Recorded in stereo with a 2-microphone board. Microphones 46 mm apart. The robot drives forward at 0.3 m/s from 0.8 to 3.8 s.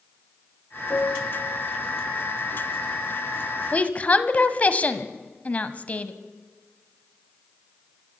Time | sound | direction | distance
0.9 | a piano | 60° left (ahead or behind) | 6.5 m
3.7 | a woman speaking | 30° left (ahead or behind) | 1.3 m